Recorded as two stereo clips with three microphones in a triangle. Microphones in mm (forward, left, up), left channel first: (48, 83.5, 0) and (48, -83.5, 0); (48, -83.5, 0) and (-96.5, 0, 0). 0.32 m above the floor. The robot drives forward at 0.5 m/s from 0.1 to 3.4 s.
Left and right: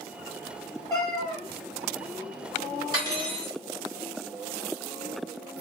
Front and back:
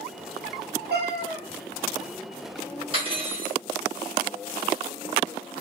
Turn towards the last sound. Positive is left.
turn(degrees=-155)